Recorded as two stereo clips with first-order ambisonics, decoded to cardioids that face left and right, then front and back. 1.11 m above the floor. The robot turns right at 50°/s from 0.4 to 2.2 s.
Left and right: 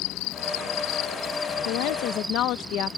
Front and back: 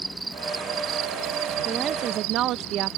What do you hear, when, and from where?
0.0 s an insect: 100° left; by 3.0 s 170° right
1.6 s a woman speaking: 105° left; by 3.0 s 135° left